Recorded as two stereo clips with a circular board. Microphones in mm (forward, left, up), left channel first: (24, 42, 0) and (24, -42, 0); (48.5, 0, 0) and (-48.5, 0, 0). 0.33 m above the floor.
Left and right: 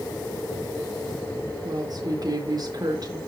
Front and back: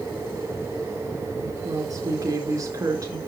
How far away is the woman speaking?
About 4.5 m.